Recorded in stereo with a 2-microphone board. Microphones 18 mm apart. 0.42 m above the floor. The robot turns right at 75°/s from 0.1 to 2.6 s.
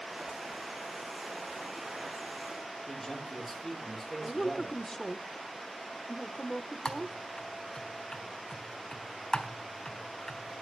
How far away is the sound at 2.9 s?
About 7 m.